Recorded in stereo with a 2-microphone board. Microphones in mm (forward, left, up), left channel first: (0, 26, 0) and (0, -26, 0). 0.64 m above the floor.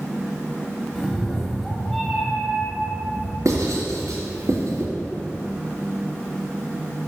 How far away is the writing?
About 2.5 m.